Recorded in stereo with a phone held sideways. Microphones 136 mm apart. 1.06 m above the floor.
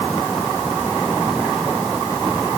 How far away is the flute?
I don't hear a flute.